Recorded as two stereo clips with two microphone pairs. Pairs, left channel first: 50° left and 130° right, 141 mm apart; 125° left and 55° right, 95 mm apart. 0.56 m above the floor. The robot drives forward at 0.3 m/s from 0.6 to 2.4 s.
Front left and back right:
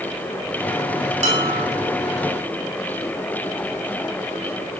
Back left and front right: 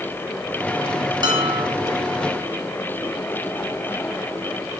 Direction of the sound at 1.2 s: 95° right.